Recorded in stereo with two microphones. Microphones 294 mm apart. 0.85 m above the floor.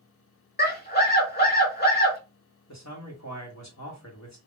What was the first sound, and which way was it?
A scream, 30° left (ahead or behind).